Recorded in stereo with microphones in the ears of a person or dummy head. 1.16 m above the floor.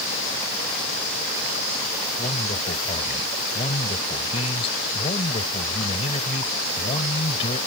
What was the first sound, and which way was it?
A man speaking, 35° left (ahead or behind).